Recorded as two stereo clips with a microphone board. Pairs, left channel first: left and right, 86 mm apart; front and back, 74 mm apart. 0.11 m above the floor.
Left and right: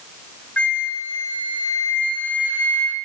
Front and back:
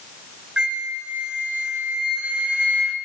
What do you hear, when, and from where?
0.6 s a flute: 130° left, 0.9 m